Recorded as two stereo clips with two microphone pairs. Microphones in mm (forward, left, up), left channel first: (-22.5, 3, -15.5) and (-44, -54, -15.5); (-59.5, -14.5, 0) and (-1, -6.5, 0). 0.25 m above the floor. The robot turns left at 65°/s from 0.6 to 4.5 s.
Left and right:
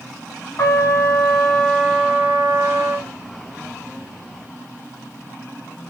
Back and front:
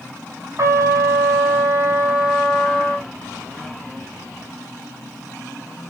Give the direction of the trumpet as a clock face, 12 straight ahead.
11 o'clock.